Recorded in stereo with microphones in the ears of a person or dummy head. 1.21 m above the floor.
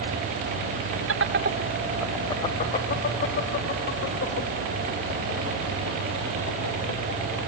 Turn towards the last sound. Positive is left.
turn(degrees=65)  # may be behind; listen again after turning